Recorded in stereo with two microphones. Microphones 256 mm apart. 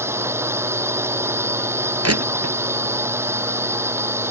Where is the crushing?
70° right (ahead or behind).